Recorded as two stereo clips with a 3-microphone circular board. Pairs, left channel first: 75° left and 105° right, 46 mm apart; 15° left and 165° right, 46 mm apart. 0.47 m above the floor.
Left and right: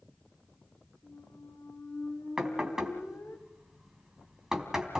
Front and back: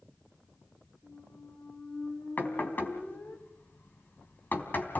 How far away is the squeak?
About 5 m.